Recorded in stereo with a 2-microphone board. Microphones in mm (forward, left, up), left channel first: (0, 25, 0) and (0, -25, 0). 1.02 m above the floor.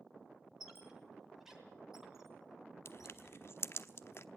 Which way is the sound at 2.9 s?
55° left (ahead or behind).